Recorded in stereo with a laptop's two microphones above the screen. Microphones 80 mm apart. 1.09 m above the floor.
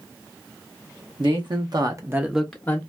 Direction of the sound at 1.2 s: 70° right (ahead or behind).